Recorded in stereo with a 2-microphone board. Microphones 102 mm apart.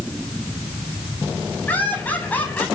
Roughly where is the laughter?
Centre.